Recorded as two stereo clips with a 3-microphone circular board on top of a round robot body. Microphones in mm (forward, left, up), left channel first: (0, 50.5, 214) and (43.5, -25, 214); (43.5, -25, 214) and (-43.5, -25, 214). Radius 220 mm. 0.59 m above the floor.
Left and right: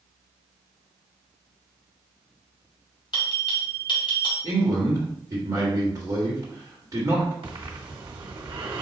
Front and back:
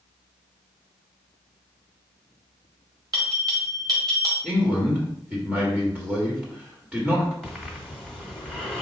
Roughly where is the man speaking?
Right.